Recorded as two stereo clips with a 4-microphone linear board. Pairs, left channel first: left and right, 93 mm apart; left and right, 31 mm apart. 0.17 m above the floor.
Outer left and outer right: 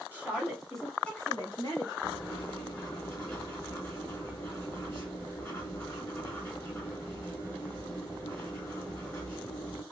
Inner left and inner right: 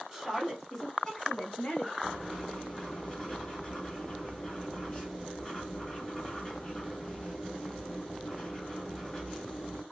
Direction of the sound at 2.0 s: 20° left (ahead or behind).